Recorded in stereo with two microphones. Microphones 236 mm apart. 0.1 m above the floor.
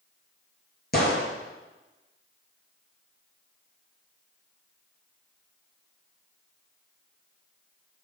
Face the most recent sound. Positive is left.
turn(degrees=45)  # may be behind; listen again after turning